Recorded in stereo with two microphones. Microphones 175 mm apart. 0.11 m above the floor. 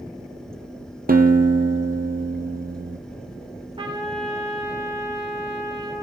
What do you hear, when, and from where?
1.1 s a guitar: 55° right (ahead or behind), 1.4 m
3.8 s a trumpet: 30° right (ahead or behind), 4.5 m